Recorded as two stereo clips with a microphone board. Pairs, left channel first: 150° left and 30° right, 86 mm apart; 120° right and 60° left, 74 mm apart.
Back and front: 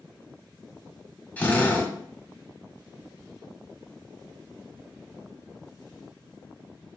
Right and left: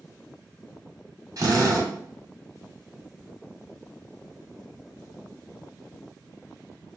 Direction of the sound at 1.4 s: 80° left.